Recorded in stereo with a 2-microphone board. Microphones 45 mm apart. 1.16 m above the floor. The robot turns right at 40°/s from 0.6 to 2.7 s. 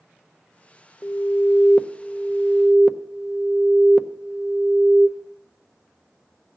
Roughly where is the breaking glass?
I don't hear breaking glass.